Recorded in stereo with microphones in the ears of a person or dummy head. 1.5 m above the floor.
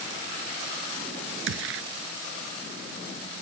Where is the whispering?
No whispering in this recording.